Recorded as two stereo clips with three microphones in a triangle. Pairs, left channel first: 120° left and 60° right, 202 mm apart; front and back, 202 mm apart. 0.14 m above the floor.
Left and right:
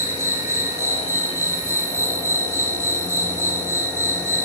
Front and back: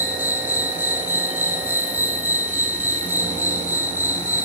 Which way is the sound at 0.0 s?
115° right.